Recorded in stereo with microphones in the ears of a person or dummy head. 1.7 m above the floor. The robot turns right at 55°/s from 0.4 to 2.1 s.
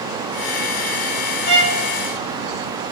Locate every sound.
1.5 s a violin: 55° left (ahead or behind), 0.7 m; by 1.8 s 35° left (ahead or behind), 0.7 m